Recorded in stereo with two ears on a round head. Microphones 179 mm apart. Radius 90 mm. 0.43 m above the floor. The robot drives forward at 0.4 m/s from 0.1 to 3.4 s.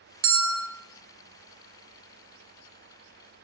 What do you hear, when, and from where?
0.2 s a bell: 75° right (ahead or behind), 0.5 m